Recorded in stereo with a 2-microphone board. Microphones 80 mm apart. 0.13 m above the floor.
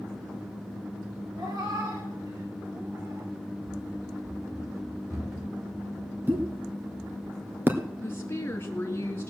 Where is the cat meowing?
50° right (ahead or behind), 4.5 m; by 3.3 s 35° right (ahead or behind), 5.5 m.